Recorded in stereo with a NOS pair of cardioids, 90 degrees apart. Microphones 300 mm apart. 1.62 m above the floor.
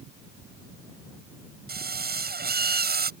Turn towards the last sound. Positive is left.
turn(degrees=-30)